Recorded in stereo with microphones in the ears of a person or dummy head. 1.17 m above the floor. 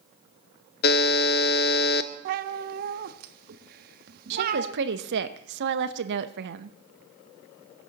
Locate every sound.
0.8 s a buzzer: 45° left (ahead or behind), 0.7 m
2.2 s a cat meowing: 55° right (ahead or behind), 0.8 m
4.3 s a woman speaking: 55° right (ahead or behind), 0.8 m